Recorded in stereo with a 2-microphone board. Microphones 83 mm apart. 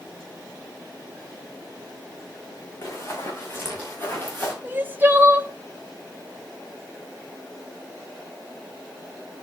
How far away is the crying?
About 0.8 m.